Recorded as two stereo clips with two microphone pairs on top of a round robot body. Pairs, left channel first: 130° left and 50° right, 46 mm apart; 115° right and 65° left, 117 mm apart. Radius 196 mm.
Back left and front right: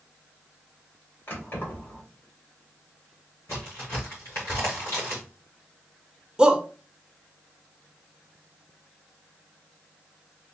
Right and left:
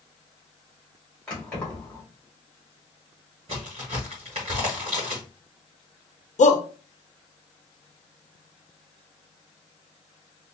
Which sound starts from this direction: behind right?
A shout, at 6.4 s.